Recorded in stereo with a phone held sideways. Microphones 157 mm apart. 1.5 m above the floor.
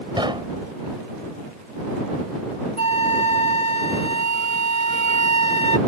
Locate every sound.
0.2 s knocking: 30° right (ahead or behind)
2.8 s a flute: 40° left (ahead or behind)